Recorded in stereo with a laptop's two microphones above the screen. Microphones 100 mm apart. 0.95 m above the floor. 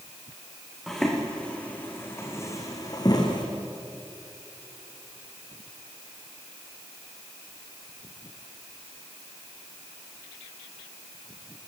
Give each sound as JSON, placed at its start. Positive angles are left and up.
{"t": 0.9, "sound": "footsteps", "side_deg": 0, "distance_m": 3.5}